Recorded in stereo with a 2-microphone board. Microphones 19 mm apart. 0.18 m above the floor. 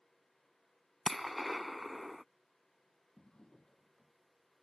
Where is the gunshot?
Centre (ahead or behind).